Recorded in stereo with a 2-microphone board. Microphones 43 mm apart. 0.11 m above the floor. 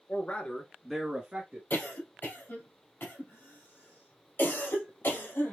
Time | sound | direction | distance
0.1 | a man speaking | 40° left (ahead or behind) | 1.6 m
1.7 | a cough | 55° left (ahead or behind) | 3 m